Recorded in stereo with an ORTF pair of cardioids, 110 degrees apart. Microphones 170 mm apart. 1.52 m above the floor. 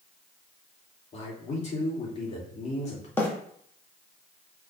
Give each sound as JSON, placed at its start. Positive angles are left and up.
{"t": 1.1, "sound": "a man speaking", "azimuth_deg": 40, "distance_m": 3.5}
{"t": 3.2, "sound": "a bird", "azimuth_deg": 15, "distance_m": 2.0}